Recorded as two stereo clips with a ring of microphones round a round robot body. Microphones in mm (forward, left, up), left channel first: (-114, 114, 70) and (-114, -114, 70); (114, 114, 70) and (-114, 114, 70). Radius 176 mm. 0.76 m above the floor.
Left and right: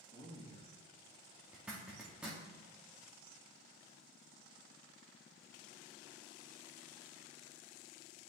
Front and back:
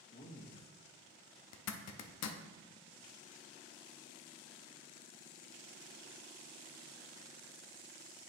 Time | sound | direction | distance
0.1 | a man speaking | 30° left | 1.6 m
1.5 | a zipper | 5° right | 0.5 m